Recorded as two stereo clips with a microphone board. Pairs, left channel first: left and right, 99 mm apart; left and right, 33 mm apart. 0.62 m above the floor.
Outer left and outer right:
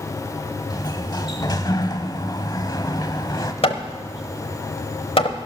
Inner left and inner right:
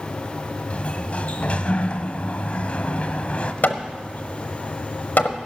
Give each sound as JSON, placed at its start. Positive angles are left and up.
{"t": 0.7, "sound": "a sliding door", "side_deg": 45, "distance_m": 0.9}
{"t": 3.6, "sound": "hammering", "side_deg": 75, "distance_m": 0.9}